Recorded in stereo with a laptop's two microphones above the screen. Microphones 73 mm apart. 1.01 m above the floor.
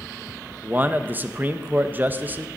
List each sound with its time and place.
0.6 s a man speaking: 25° right (ahead or behind), 0.8 m